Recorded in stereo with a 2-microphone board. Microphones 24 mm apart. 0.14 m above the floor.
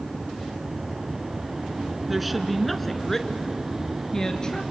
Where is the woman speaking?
10° right (ahead or behind), 1.7 m; by 4.6 s 25° left (ahead or behind), 2.5 m.